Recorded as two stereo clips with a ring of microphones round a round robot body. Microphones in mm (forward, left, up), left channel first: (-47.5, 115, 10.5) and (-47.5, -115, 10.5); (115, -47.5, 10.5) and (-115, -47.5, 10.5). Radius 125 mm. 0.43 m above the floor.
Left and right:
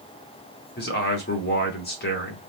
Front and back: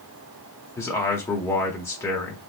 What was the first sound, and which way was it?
A man speaking, 75° left.